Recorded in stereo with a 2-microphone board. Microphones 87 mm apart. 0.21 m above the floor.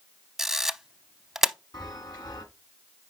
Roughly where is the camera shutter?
Centre.